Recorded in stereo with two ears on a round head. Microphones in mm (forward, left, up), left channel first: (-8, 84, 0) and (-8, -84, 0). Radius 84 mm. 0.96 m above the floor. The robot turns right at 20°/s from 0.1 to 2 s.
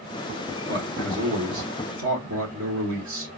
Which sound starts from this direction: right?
A man speaking, at 0.7 s.